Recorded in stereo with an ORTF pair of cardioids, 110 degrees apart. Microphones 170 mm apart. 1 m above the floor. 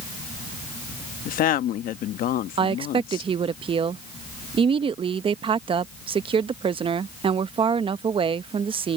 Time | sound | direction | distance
1.2 | a woman speaking | 60° left | ?
2.6 | a woman speaking | 35° right | ?